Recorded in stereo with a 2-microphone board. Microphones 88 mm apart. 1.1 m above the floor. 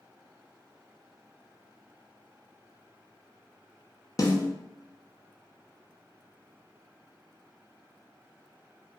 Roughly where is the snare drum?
Left.